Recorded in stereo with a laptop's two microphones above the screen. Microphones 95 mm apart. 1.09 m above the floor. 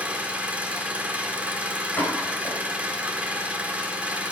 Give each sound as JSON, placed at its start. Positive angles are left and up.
{"t": 0.0, "sound": "an engine running", "side_deg": -15, "distance_m": 1.0}
{"t": 2.0, "sound": "a pop", "side_deg": 20, "distance_m": 5.5}